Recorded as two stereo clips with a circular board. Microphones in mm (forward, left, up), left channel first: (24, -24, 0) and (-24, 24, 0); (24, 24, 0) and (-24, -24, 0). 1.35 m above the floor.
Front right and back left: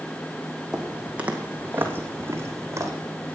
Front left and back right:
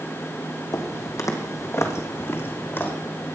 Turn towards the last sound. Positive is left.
turn(degrees=100)